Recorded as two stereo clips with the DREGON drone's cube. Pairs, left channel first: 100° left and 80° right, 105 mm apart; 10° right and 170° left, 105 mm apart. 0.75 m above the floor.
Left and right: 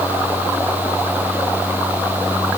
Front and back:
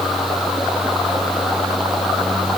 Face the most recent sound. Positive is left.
No sound to turn to.